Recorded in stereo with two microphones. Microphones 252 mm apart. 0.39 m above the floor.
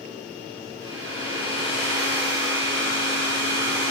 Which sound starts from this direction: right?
A hair dryer, at 0.8 s.